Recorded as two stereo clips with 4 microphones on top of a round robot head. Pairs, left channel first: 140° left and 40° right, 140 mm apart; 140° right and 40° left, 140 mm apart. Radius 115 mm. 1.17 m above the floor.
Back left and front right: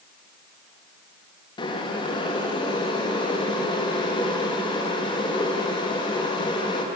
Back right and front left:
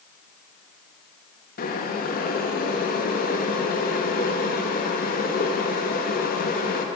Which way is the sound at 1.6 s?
160° right.